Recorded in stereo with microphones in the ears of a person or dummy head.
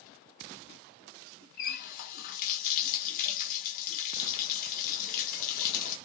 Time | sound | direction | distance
1.6 | a running tap | 50° left (ahead or behind) | 0.9 m